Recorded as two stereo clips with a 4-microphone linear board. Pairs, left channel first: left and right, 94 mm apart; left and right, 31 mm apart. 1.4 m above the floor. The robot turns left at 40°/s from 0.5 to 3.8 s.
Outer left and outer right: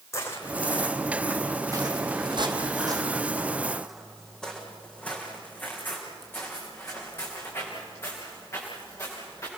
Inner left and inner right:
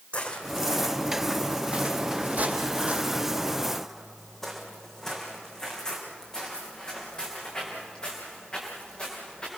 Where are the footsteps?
30° left (ahead or behind), 3 m; by 9.5 s 35° left (ahead or behind), 7.5 m.